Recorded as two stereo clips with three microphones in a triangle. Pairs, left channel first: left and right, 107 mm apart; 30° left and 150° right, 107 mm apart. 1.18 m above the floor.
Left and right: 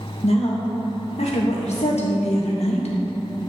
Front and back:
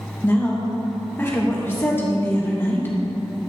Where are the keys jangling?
No keys jangling in this recording.